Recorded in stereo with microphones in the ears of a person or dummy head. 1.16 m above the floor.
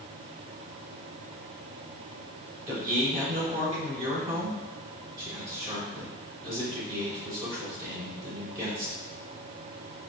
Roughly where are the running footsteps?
I don't hear running footsteps.